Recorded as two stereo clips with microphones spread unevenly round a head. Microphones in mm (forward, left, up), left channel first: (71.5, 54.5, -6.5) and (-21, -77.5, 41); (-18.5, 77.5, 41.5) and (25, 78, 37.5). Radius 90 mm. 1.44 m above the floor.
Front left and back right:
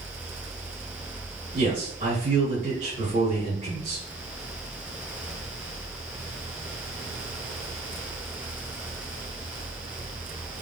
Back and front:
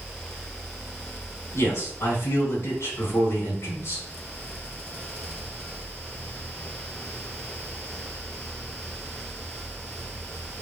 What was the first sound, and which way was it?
A man speaking, straight behind.